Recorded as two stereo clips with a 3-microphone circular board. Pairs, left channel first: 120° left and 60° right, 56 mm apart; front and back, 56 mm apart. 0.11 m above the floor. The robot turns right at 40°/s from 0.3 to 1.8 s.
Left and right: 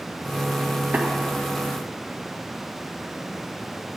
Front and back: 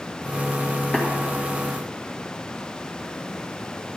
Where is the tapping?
65° right, 1.8 m; by 1.1 s 60° right, 1.8 m.